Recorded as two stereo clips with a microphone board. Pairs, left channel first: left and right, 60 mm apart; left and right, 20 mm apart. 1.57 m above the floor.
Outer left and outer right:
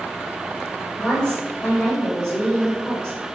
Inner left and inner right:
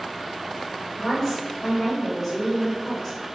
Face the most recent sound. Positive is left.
turn(degrees=10)  # may be behind; listen again after turning